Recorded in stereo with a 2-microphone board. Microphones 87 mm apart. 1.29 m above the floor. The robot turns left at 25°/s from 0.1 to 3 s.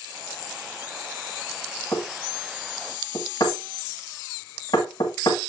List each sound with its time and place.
1.9 s knocking: 35° left (ahead or behind), 1.7 m; by 5.4 s 60° left (ahead or behind), 1.7 m